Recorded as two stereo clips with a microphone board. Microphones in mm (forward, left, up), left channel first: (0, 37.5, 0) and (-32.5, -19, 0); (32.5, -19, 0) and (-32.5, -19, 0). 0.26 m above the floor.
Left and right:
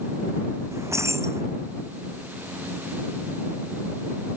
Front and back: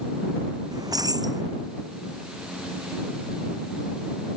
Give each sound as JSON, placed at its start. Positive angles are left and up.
{"t": 0.7, "sound": "keys jangling", "azimuth_deg": -165}